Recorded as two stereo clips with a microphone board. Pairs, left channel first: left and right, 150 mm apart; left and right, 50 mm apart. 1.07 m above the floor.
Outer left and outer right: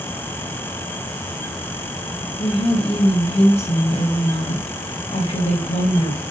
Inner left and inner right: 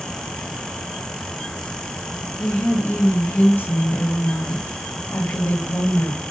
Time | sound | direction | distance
2.4 | a woman speaking | 45° left (ahead or behind) | 1.3 m